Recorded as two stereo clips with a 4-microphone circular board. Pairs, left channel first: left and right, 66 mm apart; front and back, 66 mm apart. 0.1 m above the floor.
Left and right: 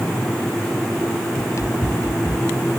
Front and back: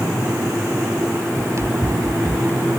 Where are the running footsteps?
135° left; by 2.7 s 130° left.